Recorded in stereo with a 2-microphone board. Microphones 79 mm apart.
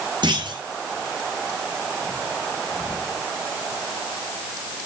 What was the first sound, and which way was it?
A clunk, 65° right (ahead or behind).